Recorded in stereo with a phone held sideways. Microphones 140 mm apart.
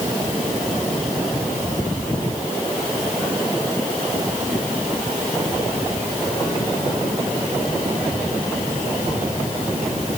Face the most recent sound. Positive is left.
No sound to turn to.